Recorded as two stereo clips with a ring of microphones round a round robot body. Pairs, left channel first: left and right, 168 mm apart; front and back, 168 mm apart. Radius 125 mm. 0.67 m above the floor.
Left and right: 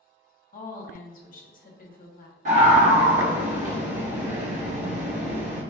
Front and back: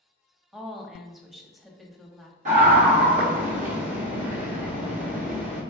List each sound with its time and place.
0.5 s a woman speaking: 90° left, 1.0 m
2.5 s a scream: 135° right, 1.0 m